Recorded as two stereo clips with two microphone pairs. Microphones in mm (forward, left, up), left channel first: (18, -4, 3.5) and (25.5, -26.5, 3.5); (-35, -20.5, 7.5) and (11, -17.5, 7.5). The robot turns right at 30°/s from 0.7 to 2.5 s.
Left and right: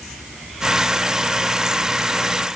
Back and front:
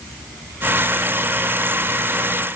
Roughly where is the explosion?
I don't hear an explosion.